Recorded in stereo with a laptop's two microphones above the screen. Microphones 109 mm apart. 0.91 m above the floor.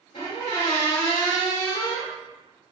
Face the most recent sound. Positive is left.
turn(degrees=60)  # may be behind; listen again after turning